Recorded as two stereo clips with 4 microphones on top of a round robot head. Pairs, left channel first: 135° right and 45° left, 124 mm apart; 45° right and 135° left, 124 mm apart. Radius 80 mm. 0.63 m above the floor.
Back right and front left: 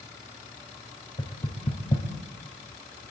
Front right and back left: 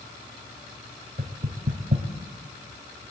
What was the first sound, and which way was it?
Knocking, 175° left.